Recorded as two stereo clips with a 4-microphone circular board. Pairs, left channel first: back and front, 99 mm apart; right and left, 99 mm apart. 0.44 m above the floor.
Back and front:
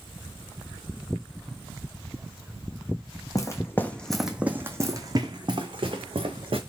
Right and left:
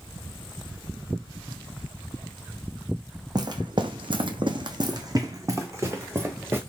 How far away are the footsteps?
About 0.9 m.